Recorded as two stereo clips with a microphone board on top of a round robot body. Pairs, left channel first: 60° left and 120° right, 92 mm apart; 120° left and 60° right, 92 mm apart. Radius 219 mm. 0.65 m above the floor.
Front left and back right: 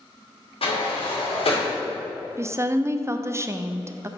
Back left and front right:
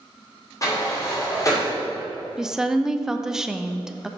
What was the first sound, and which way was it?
A sliding door, 65° left.